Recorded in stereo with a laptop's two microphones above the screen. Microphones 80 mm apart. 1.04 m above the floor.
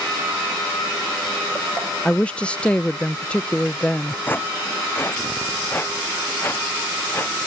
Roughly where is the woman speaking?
Centre.